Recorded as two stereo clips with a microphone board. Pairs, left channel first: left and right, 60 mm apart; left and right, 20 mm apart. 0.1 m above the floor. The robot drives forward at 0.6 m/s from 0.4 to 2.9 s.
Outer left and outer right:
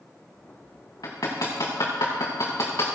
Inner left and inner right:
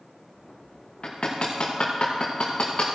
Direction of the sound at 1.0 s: 85° left.